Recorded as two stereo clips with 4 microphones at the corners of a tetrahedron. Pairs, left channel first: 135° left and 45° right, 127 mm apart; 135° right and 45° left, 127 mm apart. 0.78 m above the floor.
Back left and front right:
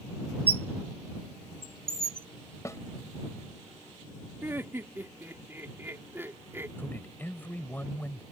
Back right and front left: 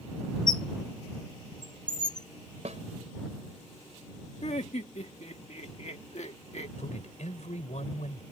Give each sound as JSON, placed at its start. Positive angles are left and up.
{"t": 0.5, "sound": "a squeak", "azimuth_deg": -85}
{"t": 2.6, "sound": "a snare drum", "azimuth_deg": 70}
{"t": 4.4, "sound": "laughter", "azimuth_deg": -115}
{"t": 6.8, "sound": "a man speaking", "azimuth_deg": -150}